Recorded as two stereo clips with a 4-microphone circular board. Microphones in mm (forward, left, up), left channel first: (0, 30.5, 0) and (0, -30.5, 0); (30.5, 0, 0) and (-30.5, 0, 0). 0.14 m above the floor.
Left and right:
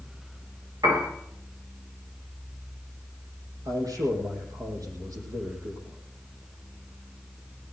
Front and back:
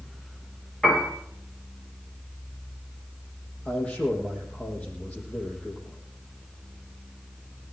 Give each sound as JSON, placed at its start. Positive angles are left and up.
{"t": 0.8, "sound": "a piano", "azimuth_deg": -80, "distance_m": 9.5}
{"t": 3.6, "sound": "a man speaking", "azimuth_deg": -70, "distance_m": 6.0}